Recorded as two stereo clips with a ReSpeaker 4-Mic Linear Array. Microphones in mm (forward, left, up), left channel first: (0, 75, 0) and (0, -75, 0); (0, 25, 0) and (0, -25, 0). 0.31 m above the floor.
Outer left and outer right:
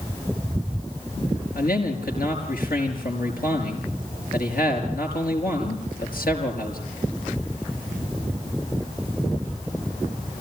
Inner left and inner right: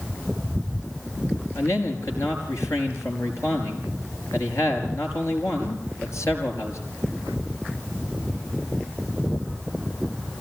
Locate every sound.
1.6 s a man speaking: 80° left, 5.5 m